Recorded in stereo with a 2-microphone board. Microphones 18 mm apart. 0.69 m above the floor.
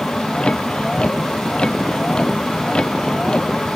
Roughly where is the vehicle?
Left.